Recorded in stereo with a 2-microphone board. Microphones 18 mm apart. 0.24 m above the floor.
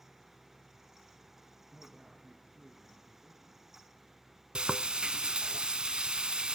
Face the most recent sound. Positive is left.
turn(degrees=-65)  # may be behind; listen again after turning